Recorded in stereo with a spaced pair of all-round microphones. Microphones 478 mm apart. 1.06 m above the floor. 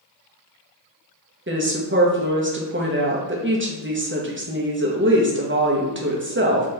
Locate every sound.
1.5 s a woman speaking: 25° right (ahead or behind), 0.9 m